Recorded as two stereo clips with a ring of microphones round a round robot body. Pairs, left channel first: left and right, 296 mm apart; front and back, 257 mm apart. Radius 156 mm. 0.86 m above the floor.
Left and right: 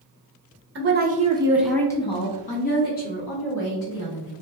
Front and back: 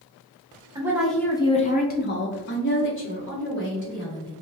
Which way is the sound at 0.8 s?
110° right.